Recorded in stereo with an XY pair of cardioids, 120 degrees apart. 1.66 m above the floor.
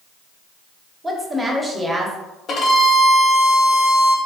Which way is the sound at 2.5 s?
45° left.